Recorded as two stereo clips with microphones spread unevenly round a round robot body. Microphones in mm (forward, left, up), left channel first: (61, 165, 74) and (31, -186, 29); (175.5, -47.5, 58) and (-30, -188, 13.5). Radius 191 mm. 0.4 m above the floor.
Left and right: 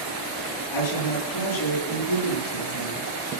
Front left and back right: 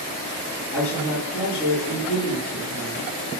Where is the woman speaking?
120° left, 8.5 m.